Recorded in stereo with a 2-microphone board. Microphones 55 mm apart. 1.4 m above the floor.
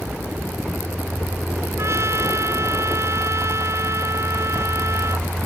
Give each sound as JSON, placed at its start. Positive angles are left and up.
{"t": 1.8, "sound": "a trumpet", "side_deg": -60}